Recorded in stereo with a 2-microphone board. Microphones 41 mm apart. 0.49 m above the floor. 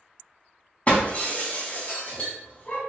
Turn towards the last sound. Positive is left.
turn(degrees=35)  # may be behind; listen again after turning